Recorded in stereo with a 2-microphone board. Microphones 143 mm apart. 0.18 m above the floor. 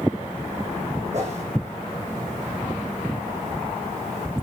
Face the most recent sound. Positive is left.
turn(degrees=-50)  # may be behind; listen again after turning